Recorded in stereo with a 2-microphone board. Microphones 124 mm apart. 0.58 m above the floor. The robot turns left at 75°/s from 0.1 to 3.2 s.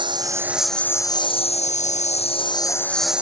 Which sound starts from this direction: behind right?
A lawn mower, at 0.0 s.